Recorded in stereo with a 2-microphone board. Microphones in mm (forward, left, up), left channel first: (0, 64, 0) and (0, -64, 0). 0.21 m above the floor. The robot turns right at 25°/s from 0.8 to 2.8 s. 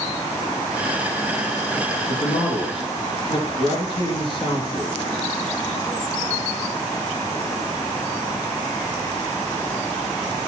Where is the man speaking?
55° left (ahead or behind), 4 m; by 5.0 s 40° left (ahead or behind), 4 m.